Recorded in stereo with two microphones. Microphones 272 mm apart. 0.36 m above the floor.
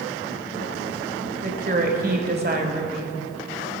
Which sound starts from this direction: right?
A woman speaking, at 1.4 s.